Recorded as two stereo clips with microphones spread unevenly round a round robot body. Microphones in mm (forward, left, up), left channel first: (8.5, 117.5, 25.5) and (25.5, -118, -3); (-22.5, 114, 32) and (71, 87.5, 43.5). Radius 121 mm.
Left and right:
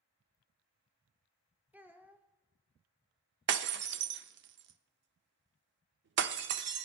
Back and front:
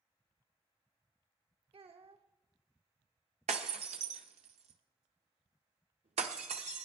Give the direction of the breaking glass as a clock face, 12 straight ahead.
1 o'clock.